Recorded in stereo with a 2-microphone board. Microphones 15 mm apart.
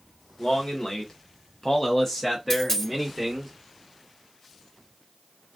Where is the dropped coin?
35° left (ahead or behind), 1.2 m.